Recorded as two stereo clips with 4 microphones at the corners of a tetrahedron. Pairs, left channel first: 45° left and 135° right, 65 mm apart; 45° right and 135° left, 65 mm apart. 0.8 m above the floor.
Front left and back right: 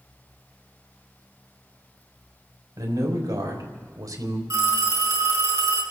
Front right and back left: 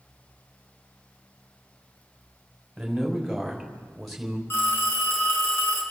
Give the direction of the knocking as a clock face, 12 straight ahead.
No knocking in this recording.